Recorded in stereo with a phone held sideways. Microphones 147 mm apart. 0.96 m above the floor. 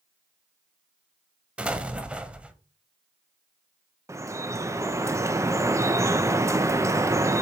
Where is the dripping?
20° right (ahead or behind), 0.5 m.